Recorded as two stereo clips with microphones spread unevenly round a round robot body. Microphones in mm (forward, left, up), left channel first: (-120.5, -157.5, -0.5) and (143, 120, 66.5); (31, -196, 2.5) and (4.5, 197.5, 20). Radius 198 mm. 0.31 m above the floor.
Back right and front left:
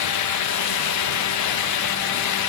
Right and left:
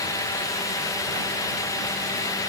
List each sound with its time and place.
Only background noise.